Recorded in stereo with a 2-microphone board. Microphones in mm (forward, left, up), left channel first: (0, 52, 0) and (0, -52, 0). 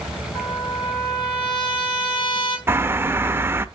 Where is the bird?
20° right (ahead or behind), 0.7 m.